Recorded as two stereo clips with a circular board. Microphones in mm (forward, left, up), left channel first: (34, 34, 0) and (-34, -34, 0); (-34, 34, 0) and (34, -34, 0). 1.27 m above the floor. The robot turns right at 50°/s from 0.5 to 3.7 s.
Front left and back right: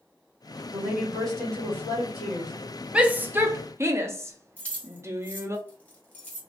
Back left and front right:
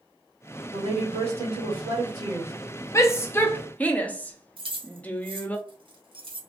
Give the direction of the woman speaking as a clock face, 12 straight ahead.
2 o'clock.